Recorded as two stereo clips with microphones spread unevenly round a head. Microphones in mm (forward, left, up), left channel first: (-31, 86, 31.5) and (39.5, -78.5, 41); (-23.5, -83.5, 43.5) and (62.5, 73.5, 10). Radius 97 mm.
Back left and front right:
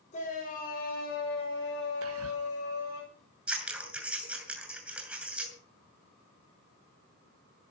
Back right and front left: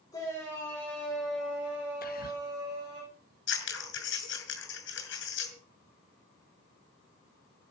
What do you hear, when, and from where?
0.1 s a shout: 165° left, 6.5 m; by 3.0 s 125° left, 6.5 m
2.0 s whispering: 75° right, 2 m
3.5 s scissors: 150° right, 6.5 m